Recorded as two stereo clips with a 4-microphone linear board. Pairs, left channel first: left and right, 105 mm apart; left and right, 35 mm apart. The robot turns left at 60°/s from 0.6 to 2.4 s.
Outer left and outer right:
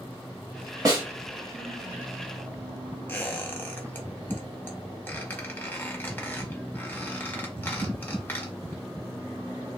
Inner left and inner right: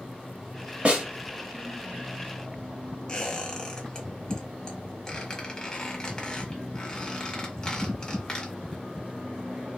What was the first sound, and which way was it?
A snare drum, 35° right (ahead or behind).